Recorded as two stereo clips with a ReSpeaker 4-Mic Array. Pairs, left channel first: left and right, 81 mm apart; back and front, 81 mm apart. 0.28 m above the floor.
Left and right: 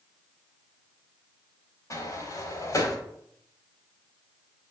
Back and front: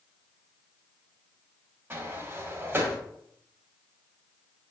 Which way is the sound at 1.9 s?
55° left.